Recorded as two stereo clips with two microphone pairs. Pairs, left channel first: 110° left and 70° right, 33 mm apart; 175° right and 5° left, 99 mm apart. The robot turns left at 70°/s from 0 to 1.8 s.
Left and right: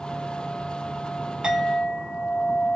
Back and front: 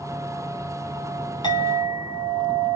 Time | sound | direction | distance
1.4 | a clink | 140° right | 1.7 m